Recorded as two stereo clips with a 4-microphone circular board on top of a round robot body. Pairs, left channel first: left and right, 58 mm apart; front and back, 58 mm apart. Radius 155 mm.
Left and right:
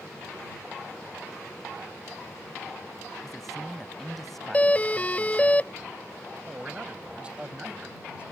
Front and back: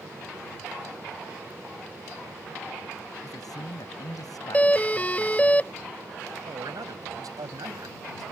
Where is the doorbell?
45° left.